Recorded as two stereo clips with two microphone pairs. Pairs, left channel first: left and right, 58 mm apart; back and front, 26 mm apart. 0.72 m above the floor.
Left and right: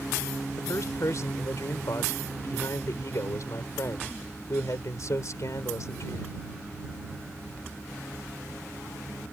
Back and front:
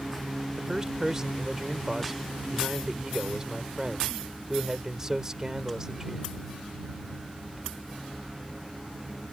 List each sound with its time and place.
0.6 s a man speaking: 65° left